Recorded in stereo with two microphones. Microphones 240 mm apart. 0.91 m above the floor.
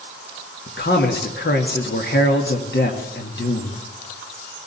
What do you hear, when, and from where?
0.7 s a man speaking: 50° left (ahead or behind), 1.7 m